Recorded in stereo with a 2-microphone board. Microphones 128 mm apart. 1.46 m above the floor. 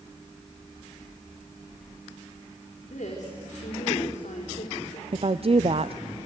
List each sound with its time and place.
2.8 s a woman speaking: 65° left (ahead or behind), 4 m
5.1 s a woman speaking: 50° right (ahead or behind), 0.6 m